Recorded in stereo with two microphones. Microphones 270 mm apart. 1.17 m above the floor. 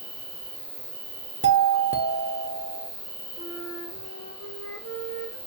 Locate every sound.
0.0 s an insect: 15° right (ahead or behind), 1.2 m
1.4 s a doorbell: 45° right (ahead or behind), 0.6 m
3.4 s a flute: 60° left (ahead or behind), 0.8 m